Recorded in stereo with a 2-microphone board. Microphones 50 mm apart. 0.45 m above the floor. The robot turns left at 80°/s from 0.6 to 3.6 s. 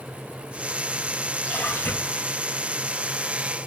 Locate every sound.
1.4 s a splash: 150° left, 4 m; by 2.3 s 80° left, 4 m